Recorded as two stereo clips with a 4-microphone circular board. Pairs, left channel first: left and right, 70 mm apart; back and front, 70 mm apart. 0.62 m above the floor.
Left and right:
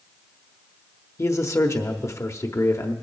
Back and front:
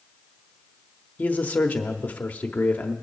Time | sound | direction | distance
1.2 | a man speaking | 120° left | 1.0 m